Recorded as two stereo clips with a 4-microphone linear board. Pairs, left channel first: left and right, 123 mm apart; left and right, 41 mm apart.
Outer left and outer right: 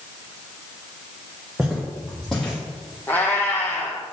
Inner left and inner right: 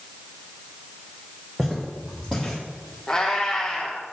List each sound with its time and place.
1.6 s footsteps: 5° right (ahead or behind), 1.8 m; by 3.0 s 10° left (ahead or behind), 2.5 m
3.1 s a cat meowing: 15° left (ahead or behind), 1.4 m